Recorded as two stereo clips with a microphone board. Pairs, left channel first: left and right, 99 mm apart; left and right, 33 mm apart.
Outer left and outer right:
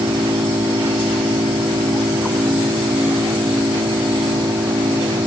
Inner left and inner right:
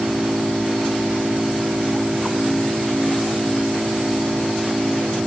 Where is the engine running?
60° right (ahead or behind).